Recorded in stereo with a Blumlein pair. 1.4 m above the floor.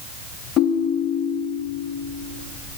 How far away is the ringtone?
About 0.7 m.